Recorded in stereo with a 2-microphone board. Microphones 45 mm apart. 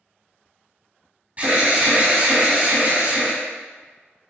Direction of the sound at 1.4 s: 35° right (ahead or behind).